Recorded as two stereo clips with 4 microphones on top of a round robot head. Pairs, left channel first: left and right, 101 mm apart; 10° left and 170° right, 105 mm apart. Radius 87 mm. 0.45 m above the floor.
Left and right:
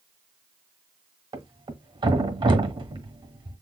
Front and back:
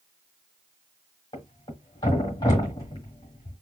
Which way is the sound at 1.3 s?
50° right.